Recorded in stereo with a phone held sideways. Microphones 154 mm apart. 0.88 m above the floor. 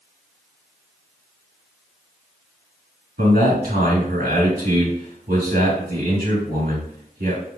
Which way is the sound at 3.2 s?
75° right (ahead or behind).